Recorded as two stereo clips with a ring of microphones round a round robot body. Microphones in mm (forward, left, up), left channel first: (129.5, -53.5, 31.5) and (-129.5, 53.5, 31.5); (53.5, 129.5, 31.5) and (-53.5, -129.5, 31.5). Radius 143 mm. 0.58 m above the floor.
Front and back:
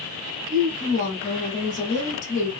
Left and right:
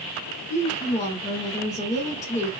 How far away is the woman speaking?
About 1.0 m.